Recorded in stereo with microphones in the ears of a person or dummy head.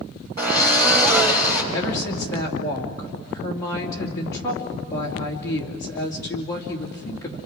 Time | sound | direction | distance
0.4 | a drill | 50° right (ahead or behind) | 4 m
1.7 | a woman speaking | 20° left (ahead or behind) | 2.5 m